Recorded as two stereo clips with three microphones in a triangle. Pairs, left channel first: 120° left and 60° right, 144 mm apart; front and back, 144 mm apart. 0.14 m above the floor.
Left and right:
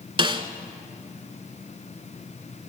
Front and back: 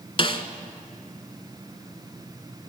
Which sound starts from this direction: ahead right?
A snare drum, at 0.2 s.